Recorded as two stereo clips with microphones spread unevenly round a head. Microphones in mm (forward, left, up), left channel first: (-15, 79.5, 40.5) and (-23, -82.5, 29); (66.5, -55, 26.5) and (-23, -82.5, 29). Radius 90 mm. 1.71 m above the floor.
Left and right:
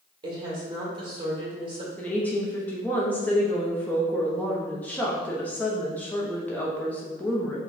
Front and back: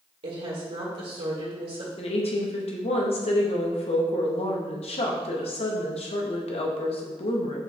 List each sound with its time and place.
0.2 s a woman speaking: 155° right, 1.8 m
2.0 s a woman speaking: 5° left, 0.9 m